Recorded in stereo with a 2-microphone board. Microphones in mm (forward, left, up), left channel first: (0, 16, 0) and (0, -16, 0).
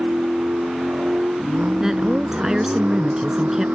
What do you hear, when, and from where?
0.0 s a vehicle: 65° right (ahead or behind)
1.8 s a woman speaking: 15° right (ahead or behind)